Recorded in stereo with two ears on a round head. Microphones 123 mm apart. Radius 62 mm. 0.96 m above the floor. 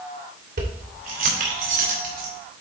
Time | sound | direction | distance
0.6 | keys jangling | 70° right (ahead or behind) | 3 m